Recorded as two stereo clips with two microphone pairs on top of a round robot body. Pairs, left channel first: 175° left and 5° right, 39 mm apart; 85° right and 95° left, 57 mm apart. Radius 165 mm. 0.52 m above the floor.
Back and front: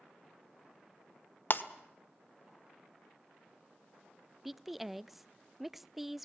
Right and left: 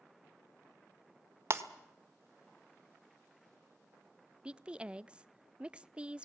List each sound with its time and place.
1.5 s breaking glass: 140° left, 1.4 m
4.5 s a woman speaking: 80° left, 0.7 m